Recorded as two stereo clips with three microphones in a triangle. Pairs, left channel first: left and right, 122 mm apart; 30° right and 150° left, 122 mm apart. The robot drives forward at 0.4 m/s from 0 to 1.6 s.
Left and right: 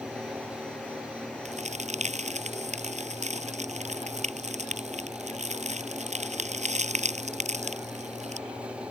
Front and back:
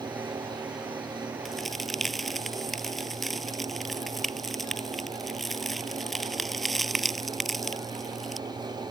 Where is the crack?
120° right.